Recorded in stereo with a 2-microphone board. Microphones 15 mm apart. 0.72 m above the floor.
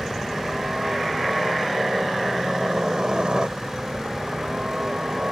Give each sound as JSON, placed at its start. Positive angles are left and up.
{"t": 0.0, "sound": "a helicopter", "side_deg": -60}